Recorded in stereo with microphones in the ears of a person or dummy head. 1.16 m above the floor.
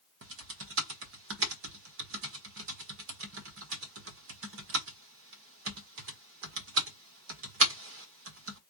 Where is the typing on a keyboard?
65° right (ahead or behind), 1.4 m.